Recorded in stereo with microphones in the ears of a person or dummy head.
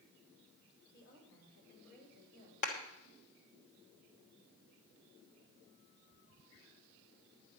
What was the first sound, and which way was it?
A woman speaking, 60° left (ahead or behind).